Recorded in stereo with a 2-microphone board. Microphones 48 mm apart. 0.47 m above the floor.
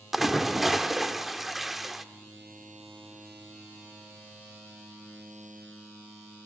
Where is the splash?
5° right (ahead or behind), 1.3 m.